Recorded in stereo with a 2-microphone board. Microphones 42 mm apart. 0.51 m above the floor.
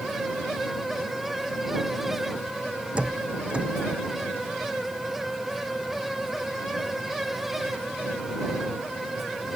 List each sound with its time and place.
3.0 s a door slam: 25° right (ahead or behind)